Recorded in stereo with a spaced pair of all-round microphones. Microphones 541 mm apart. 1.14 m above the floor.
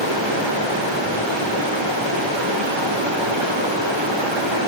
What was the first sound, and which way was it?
Running water, 60° right (ahead or behind).